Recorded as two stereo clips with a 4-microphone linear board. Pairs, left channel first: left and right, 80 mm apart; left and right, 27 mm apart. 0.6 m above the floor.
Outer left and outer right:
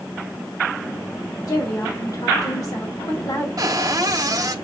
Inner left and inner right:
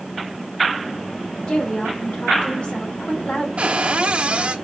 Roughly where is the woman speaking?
Left.